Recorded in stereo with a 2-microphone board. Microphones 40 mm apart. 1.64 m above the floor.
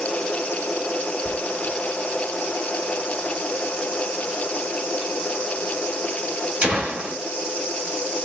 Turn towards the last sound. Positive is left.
turn(degrees=-35)  # may be behind; listen again after turning